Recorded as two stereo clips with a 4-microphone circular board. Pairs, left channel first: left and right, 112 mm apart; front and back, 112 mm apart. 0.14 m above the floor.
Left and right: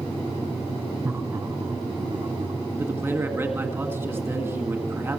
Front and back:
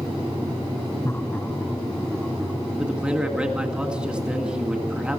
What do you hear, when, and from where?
1.0 s laughter: 40° right, 1.1 m; by 2.6 s 90° right, 1.6 m
2.8 s a man speaking: 115° right, 1.7 m